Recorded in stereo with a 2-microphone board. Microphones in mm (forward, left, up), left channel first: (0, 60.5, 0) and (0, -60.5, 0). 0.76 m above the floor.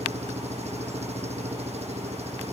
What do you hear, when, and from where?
0.0 s an engine running: 65° right (ahead or behind)